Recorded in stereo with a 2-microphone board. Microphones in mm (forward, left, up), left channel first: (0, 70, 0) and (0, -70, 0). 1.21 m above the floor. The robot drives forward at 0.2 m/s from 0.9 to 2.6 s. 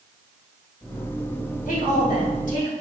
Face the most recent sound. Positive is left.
turn(degrees=60)  # may be behind; listen again after turning